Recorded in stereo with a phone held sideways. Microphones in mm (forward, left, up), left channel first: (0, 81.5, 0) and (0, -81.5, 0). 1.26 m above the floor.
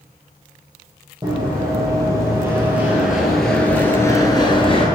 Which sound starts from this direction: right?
Running footsteps, at 1.2 s.